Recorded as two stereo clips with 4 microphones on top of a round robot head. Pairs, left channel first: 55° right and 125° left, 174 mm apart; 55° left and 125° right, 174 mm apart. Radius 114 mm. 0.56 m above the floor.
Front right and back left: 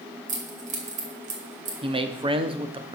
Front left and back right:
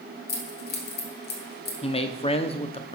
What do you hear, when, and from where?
0.3 s keys jangling: 80° left, 1.9 m
1.8 s a man speaking: 85° left, 1.0 m